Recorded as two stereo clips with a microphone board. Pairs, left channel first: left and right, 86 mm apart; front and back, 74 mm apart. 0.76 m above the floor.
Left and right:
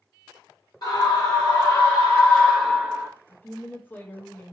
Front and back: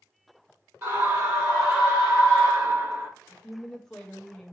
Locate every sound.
0.8 s a scream: 125° left, 1.9 m; by 3.1 s 135° right, 0.8 m
3.3 s a woman speaking: 75° left, 0.7 m